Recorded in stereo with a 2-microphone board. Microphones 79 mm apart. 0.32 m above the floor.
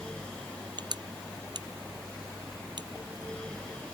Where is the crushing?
60° right (ahead or behind).